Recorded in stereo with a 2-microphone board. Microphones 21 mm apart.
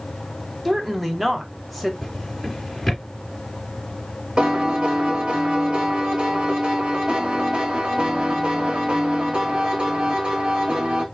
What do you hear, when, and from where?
0.7 s a woman speaking: 5° right (ahead or behind), 1.3 m
2.0 s a drawer: 5° left (ahead or behind), 3 m
4.4 s a piano: 45° right (ahead or behind), 1.4 m